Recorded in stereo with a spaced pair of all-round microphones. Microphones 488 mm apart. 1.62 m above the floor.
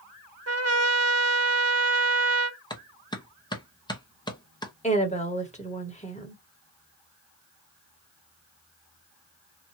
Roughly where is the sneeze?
I don't hear a sneeze.